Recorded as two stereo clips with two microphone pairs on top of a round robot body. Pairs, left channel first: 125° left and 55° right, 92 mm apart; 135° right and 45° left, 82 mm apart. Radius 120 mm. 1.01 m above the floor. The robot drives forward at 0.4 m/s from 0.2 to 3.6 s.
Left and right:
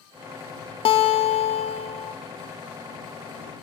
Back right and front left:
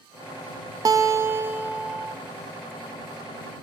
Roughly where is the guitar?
Left.